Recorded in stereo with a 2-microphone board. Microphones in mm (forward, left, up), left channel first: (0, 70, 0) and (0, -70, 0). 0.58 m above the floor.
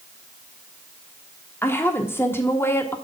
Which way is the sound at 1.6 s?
15° left (ahead or behind).